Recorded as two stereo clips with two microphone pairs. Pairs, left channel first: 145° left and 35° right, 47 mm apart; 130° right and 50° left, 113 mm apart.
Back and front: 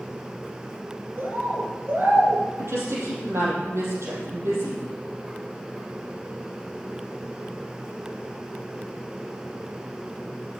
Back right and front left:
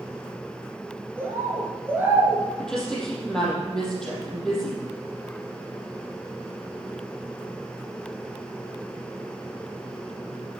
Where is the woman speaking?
45° right, 4.5 m.